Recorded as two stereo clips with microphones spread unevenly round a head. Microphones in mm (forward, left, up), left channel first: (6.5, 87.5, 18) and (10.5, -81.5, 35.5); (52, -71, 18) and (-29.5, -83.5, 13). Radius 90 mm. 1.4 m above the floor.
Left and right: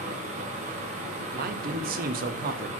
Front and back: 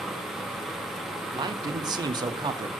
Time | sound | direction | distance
0.0 | a fan | 80° right | 0.9 m
1.3 | a man speaking | 130° right | 0.6 m